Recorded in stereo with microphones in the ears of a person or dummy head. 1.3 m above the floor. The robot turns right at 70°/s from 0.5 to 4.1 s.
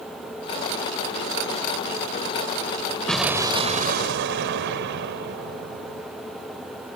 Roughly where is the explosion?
Behind.